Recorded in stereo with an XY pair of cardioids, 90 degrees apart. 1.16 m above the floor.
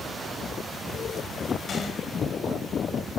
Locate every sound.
1.7 s a gunshot: 55° left, 5 m